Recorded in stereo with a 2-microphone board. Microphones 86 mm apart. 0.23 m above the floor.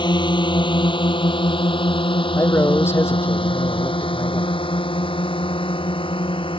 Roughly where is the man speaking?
Left.